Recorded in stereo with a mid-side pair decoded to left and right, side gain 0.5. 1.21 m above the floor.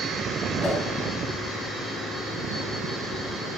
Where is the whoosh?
10° left, 1.5 m.